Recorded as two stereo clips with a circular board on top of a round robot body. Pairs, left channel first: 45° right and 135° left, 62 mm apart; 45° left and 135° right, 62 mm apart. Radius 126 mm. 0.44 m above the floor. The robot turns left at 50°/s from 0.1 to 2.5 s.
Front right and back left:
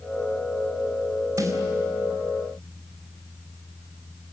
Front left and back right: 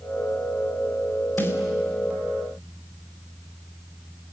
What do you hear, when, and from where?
1.4 s a snare drum: 105° left, 3.5 m; by 1.6 s 95° left, 3.5 m